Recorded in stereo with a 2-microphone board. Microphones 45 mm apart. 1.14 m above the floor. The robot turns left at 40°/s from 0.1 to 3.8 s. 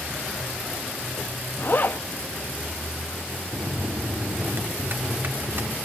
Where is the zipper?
50° left (ahead or behind), 0.6 m; by 2.0 s 45° left (ahead or behind), 0.6 m.